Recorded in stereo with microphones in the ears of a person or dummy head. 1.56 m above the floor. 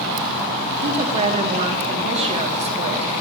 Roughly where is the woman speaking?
Right.